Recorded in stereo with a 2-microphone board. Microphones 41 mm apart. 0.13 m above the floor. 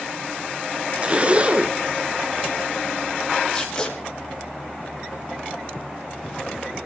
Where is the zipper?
30° right (ahead or behind), 0.5 m.